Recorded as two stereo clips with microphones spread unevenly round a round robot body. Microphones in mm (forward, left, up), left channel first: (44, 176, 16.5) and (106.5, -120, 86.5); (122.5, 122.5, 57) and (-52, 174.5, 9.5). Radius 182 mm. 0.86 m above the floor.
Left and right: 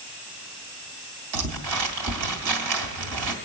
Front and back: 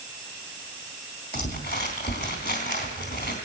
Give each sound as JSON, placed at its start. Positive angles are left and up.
{"t": 1.3, "sound": "crumpling", "azimuth_deg": -90, "distance_m": 2.0}